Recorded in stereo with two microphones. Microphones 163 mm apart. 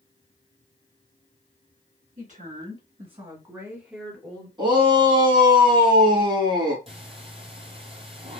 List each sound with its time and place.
2.2 s a woman speaking: 55° right (ahead or behind), 2 m; by 4.5 s 10° left (ahead or behind), 1.6 m
4.6 s a shout: 30° right (ahead or behind), 1.8 m
6.9 s breathing: 35° right (ahead or behind), 1.1 m